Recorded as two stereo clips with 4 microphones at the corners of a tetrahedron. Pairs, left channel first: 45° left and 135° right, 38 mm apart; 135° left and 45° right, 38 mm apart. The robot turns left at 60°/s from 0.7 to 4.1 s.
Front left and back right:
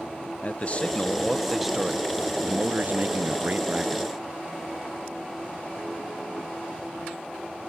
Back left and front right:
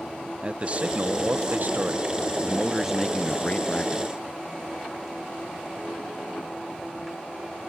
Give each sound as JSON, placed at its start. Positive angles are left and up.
{"t": 0.4, "sound": "a man speaking", "azimuth_deg": 0}